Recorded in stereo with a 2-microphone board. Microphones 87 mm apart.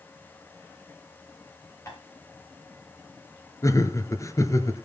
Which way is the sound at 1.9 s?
35° left (ahead or behind).